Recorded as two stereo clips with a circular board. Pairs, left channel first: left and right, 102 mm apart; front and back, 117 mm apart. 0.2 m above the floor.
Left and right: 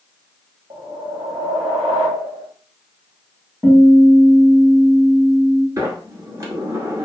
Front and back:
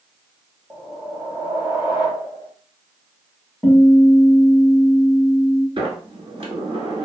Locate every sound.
0.7 s a whoosh: 110° right, 1.1 m
3.6 s a guitar: 115° right, 1.6 m
5.8 s a sliding door: 140° right, 0.9 m